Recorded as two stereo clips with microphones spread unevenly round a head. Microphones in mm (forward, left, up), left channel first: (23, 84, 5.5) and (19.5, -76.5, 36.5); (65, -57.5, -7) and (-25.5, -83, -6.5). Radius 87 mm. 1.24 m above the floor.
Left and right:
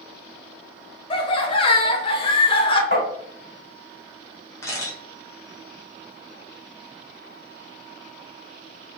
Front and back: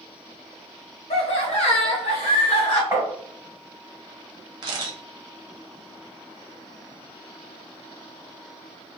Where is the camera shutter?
170° left, 0.6 m.